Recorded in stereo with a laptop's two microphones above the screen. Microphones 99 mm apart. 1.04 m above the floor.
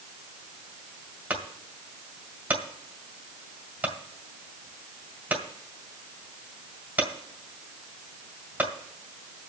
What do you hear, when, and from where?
1.3 s a clunk: 15° right (ahead or behind), 1.9 m